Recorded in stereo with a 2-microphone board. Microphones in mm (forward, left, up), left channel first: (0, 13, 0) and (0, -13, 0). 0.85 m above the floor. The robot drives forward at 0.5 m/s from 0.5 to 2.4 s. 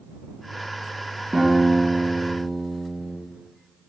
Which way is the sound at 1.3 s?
55° right (ahead or behind).